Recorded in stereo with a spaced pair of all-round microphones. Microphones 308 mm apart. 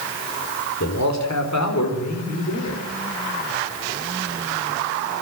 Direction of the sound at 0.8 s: 65° left (ahead or behind).